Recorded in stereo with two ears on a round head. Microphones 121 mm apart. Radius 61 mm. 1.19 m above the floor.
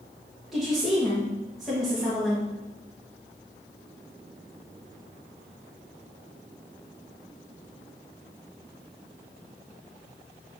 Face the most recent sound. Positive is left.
turn(degrees=-5)  # may be behind; listen again after turning